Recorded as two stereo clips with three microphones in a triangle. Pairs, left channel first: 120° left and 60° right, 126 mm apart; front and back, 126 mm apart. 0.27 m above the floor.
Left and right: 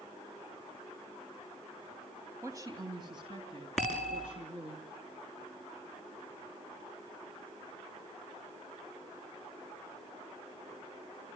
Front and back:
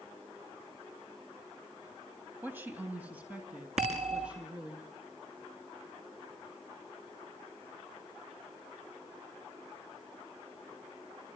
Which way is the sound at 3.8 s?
155° right.